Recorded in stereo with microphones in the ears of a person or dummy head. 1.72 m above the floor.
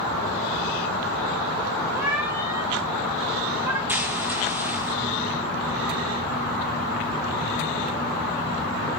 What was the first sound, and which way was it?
A cat meowing, 10° right (ahead or behind).